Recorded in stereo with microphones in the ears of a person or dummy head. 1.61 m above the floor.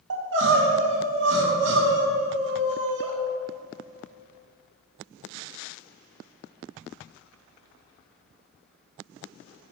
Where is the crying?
65° right (ahead or behind), 1.7 m.